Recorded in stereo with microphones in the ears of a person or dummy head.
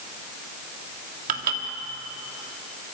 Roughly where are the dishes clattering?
Right.